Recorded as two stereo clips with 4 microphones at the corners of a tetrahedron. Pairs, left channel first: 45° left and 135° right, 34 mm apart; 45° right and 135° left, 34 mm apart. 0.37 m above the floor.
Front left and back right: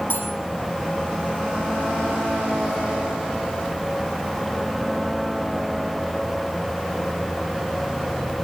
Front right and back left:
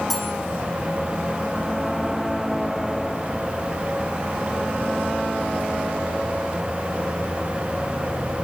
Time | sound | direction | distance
0.1 | cutlery clinking | 40° left | 9.5 m